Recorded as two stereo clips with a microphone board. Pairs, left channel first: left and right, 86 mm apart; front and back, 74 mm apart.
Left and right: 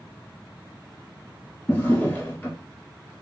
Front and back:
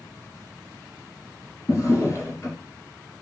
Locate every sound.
1.7 s a drawer: 25° left, 1.0 m